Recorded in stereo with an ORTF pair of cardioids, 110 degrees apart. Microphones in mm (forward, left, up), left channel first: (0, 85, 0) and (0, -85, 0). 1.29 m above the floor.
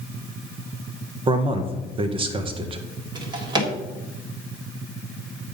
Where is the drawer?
30° right, 1.9 m.